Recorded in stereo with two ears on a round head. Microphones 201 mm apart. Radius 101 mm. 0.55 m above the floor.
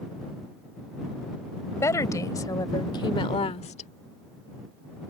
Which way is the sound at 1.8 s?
15° left (ahead or behind).